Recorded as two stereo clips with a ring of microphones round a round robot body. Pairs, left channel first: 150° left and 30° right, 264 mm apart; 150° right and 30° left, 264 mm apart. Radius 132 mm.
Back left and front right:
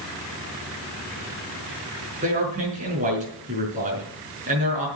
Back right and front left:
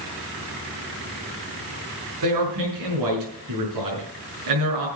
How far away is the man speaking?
About 5.5 m.